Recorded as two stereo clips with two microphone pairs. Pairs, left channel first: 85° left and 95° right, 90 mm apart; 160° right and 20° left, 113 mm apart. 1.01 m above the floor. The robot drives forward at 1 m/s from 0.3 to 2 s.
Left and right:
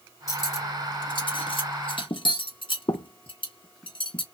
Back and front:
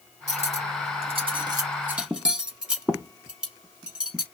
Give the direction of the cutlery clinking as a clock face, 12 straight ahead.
11 o'clock.